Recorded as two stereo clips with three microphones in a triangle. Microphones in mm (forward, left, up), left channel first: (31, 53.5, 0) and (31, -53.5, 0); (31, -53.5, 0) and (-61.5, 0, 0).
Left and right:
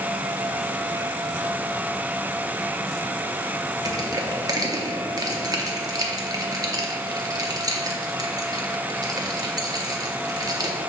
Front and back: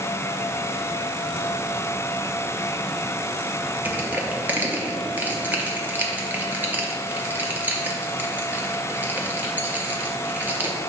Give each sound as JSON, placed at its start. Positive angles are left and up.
{"t": 3.9, "sound": "crushing", "azimuth_deg": -135, "distance_m": 0.6}